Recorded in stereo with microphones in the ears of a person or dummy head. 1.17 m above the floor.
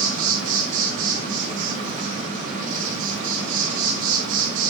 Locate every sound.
0.0 s an insect: 35° right (ahead or behind), 3 m